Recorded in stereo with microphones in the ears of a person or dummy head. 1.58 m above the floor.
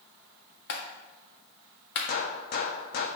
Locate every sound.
0.7 s a clap: 60° left (ahead or behind), 1.5 m
2.1 s a gunshot: 55° left (ahead or behind), 0.9 m